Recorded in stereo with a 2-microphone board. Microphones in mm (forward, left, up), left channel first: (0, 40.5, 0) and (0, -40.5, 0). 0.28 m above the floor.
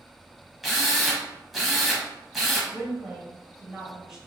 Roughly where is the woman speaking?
Centre.